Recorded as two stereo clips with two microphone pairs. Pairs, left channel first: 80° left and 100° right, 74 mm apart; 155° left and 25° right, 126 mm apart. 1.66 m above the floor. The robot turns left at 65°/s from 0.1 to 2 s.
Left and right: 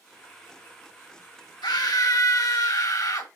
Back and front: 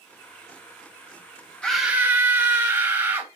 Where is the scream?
70° left, 2.5 m; by 3.3 s 45° left, 2.5 m.